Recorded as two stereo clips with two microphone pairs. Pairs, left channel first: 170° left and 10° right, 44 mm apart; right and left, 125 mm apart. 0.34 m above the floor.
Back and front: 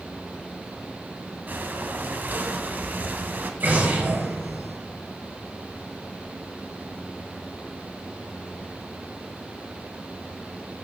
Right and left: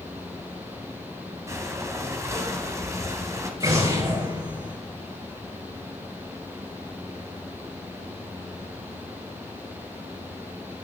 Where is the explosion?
30° left, 4 m.